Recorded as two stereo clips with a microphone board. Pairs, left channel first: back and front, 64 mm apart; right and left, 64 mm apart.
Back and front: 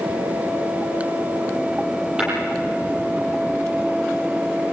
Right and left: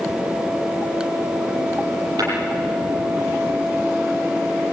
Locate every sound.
2.2 s tapping: 75° left, 9.5 m